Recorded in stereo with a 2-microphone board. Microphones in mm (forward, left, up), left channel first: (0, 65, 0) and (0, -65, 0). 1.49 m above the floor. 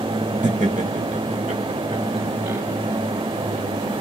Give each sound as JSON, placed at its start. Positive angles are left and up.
{"t": 0.4, "sound": "laughter", "side_deg": -75, "distance_m": 1.4}